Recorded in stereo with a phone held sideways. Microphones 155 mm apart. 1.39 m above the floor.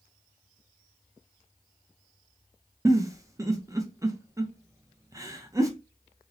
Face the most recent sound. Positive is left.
turn(degrees=-20)  # may be behind; listen again after turning